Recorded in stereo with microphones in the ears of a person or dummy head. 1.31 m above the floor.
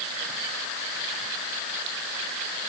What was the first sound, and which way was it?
Only background noise.